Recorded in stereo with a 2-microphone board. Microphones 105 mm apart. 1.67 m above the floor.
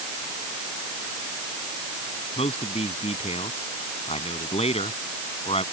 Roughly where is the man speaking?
Left.